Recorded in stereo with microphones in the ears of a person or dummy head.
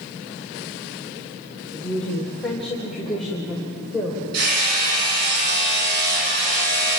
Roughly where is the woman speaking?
Centre.